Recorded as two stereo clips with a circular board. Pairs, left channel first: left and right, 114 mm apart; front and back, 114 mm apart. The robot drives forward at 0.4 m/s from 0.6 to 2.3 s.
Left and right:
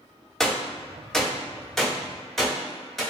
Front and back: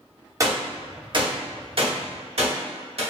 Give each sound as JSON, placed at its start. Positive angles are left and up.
{"t": 0.4, "sound": "a gunshot", "azimuth_deg": 170, "distance_m": 0.6}